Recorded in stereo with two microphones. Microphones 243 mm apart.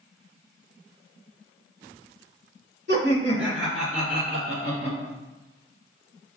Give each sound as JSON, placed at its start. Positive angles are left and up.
{"t": 2.9, "sound": "laughter", "side_deg": -50, "distance_m": 2.0}